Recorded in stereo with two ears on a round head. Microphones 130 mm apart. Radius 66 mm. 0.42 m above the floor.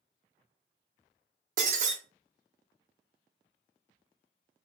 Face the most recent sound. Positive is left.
turn(degrees=-55)  # may be behind; listen again after turning